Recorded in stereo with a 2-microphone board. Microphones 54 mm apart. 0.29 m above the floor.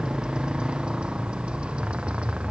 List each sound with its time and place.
0.0 s a motorcycle: 15° right (ahead or behind); by 2.5 s 20° right (ahead or behind)